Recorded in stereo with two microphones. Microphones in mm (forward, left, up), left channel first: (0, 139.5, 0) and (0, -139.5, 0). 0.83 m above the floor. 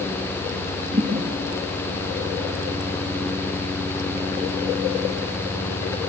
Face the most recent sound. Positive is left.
turn(degrees=-55)  # may be behind; listen again after turning